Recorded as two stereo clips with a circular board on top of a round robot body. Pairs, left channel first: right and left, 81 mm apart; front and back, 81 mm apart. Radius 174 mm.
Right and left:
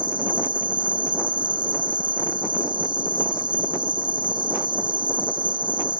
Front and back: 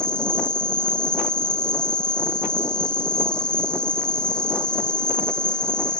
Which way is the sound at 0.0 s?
80° left.